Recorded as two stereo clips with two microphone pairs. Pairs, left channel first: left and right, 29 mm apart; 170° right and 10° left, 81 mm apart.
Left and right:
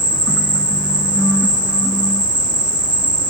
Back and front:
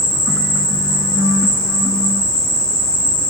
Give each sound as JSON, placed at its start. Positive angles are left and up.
{"t": 0.0, "sound": "an insect", "azimuth_deg": -50, "distance_m": 4.0}